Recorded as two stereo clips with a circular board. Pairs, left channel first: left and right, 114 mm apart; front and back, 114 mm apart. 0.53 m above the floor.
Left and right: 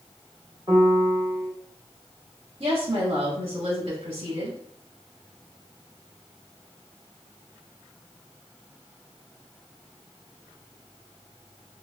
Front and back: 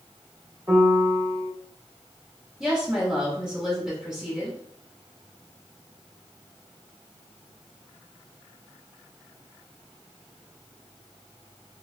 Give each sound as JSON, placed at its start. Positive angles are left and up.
{"t": 0.7, "sound": "a piano", "azimuth_deg": -130, "distance_m": 1.1}
{"t": 2.6, "sound": "a woman speaking", "azimuth_deg": -95, "distance_m": 1.4}